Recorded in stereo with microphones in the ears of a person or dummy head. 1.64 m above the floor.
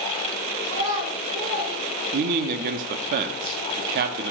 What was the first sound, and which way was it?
A child speaking, 60° right (ahead or behind).